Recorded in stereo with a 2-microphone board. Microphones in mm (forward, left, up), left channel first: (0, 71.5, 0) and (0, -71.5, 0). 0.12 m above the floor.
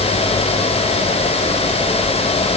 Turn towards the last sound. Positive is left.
No sound to turn to.